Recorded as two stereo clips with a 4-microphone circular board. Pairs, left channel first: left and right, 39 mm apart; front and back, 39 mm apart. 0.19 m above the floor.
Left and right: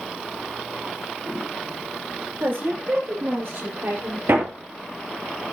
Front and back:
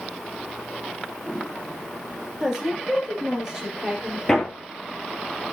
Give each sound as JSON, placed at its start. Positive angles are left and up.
{"t": 2.4, "sound": "a woman speaking", "azimuth_deg": -105, "distance_m": 4.5}
{"t": 4.3, "sound": "hammering", "azimuth_deg": -75, "distance_m": 2.5}